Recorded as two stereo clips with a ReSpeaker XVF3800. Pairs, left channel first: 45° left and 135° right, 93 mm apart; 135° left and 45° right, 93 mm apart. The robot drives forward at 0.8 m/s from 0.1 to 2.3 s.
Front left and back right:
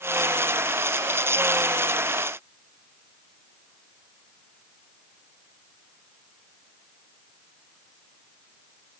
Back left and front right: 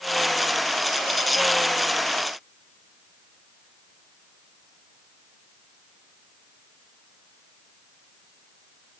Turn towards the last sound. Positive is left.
No sound to turn to.